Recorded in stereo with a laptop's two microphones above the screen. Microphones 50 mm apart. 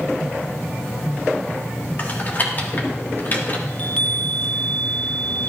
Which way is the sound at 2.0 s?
40° left (ahead or behind).